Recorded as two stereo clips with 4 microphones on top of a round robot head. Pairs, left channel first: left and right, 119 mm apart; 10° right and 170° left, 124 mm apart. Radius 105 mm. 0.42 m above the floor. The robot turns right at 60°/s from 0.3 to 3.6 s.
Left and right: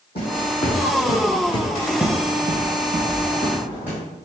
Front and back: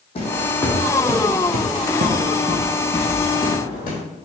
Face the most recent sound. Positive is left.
turn(degrees=-10)